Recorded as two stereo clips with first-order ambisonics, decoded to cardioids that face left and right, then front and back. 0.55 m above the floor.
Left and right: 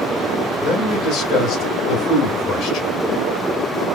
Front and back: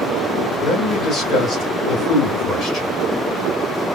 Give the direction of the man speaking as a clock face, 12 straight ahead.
10 o'clock.